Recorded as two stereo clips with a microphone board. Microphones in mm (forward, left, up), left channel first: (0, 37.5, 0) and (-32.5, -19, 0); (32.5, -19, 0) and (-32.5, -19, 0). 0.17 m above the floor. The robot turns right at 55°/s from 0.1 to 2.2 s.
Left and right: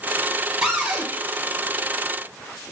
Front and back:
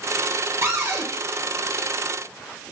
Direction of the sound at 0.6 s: 165° left.